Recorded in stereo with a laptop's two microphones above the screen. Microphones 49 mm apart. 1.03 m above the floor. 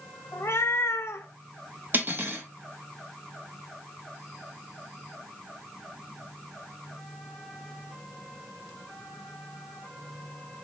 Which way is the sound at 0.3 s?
65° left (ahead or behind).